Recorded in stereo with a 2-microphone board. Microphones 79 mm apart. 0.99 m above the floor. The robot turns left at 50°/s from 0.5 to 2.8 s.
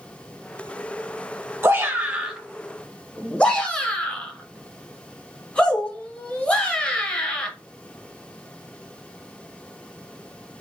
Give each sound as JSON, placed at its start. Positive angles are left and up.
{"t": 1.6, "sound": "a shout", "side_deg": -35, "distance_m": 0.9}